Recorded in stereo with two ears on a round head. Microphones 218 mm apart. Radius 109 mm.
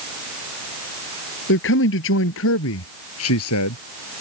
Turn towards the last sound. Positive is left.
turn(degrees=65)  # may be behind; listen again after turning